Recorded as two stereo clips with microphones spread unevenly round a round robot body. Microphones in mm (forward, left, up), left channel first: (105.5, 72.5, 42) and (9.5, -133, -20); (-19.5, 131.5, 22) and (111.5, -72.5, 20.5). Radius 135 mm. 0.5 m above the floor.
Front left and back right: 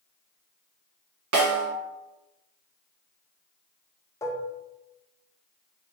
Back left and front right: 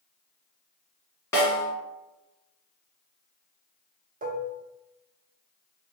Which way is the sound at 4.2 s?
25° right.